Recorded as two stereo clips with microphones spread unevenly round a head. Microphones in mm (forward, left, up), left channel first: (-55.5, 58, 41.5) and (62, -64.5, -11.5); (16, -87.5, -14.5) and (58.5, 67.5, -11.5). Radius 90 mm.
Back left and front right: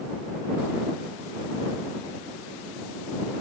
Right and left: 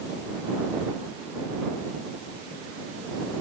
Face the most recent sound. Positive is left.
No sound to turn to.